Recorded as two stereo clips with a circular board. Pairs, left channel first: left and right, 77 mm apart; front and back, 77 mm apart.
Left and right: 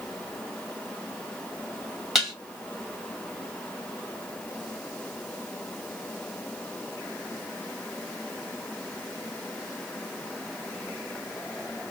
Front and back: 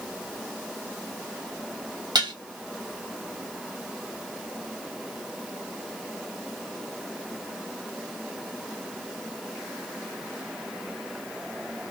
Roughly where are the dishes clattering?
Behind.